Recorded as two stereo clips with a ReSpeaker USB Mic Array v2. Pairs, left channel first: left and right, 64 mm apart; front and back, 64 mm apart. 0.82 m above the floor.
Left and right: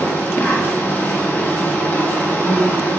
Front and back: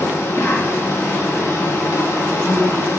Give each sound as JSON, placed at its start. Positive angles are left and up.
{"t": 0.0, "sound": "an insect", "azimuth_deg": 35, "distance_m": 1.1}